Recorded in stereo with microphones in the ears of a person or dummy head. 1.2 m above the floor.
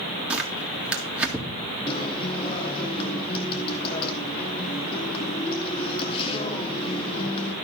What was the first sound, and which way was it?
Tearing paper, centre (ahead or behind).